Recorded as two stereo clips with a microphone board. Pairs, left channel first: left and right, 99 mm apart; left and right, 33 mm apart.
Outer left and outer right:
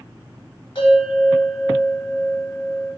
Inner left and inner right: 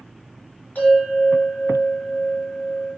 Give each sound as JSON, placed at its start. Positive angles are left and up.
{"t": 0.8, "sound": "a bell", "side_deg": 55, "distance_m": 1.4}